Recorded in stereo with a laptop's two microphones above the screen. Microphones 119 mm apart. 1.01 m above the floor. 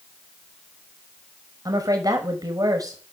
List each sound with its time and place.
1.6 s a woman speaking: 30° right (ahead or behind), 5.5 m